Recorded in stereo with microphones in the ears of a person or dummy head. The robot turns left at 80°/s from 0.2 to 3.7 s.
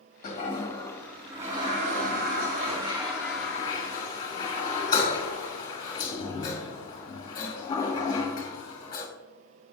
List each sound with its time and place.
0.2 s a toilet flushing: 50° left (ahead or behind), 1.6 m; by 9.1 s 20° left (ahead or behind), 1.6 m